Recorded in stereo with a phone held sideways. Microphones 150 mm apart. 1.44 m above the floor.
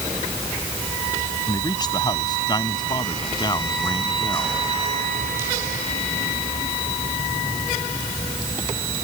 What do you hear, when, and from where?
1.5 s a man speaking: 25° left (ahead or behind); by 4.6 s 30° left (ahead or behind)